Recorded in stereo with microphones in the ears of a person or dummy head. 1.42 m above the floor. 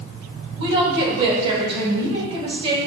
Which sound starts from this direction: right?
A woman speaking, at 0.6 s.